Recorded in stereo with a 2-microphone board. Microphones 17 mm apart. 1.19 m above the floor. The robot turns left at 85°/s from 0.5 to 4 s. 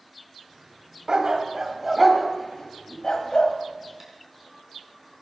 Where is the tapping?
25° right (ahead or behind), 3.5 m.